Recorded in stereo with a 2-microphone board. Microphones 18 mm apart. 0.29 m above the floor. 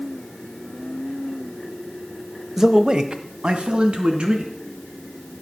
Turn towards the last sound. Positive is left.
turn(degrees=-75)  # may be behind; listen again after turning